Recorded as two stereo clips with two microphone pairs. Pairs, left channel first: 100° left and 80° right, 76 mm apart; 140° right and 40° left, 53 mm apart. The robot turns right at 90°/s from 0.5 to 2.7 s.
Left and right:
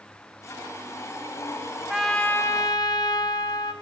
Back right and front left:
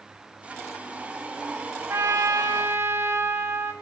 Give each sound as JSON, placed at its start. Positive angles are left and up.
{"t": 1.9, "sound": "a trumpet", "azimuth_deg": 0, "distance_m": 1.6}